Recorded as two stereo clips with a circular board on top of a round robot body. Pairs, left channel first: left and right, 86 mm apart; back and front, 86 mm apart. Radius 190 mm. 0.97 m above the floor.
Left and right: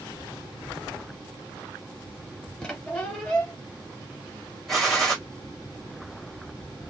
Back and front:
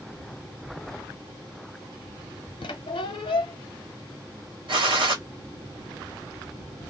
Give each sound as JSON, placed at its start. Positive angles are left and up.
{"t": 2.6, "sound": "a squeak", "azimuth_deg": 170, "distance_m": 0.7}
{"t": 4.7, "sound": "a gunshot", "azimuth_deg": 0, "distance_m": 1.3}